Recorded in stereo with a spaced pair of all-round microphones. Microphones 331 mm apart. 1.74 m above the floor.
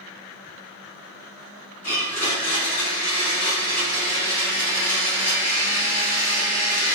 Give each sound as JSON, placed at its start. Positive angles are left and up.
{"t": 1.8, "sound": "a blender", "side_deg": 55, "distance_m": 1.0}